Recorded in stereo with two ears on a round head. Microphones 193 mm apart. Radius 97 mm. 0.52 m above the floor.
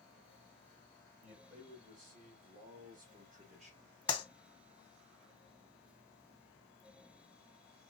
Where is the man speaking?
35° right (ahead or behind), 3 m; by 3.9 s 25° right (ahead or behind), 1.3 m.